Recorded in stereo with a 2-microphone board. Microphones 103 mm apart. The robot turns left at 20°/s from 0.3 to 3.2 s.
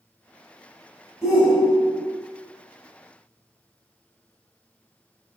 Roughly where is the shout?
Centre.